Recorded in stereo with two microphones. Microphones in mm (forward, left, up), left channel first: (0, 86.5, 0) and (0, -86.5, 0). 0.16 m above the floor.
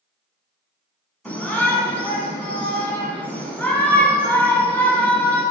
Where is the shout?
10° left (ahead or behind), 1.3 m.